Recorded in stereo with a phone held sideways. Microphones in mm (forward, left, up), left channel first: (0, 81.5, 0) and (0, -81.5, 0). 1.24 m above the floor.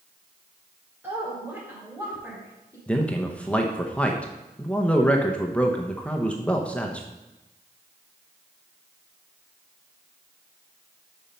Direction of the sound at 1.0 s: 10° right (ahead or behind).